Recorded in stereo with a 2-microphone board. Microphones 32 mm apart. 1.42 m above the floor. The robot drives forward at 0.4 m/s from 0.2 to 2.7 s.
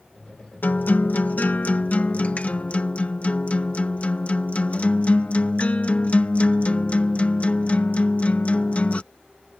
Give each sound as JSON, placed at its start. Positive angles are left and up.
{"t": 0.6, "sound": "a guitar", "side_deg": 70}